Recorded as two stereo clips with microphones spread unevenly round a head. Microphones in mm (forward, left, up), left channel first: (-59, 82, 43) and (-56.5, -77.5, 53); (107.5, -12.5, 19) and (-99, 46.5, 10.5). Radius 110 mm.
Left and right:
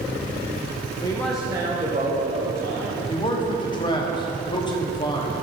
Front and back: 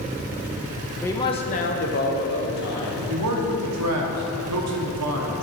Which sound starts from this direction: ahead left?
A man speaking, at 1.0 s.